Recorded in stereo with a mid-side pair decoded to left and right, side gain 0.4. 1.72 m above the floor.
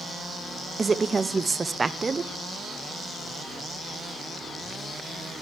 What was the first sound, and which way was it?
A woman speaking, 30° right.